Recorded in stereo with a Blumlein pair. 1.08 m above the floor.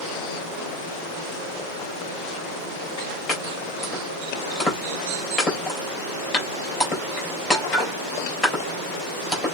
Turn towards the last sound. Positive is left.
turn(degrees=20)